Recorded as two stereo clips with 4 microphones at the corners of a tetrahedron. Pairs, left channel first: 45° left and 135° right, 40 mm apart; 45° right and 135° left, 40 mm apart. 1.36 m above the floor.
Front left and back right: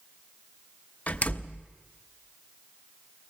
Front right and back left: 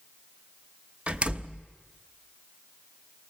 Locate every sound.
1.1 s a door slam: 85° left, 0.8 m